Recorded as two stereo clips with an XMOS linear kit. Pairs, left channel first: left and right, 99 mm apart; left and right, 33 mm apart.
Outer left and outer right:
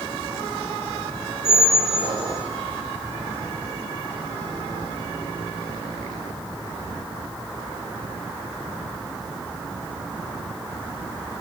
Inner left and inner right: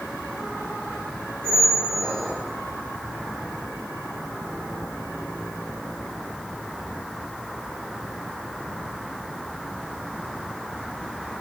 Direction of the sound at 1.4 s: 75° right (ahead or behind).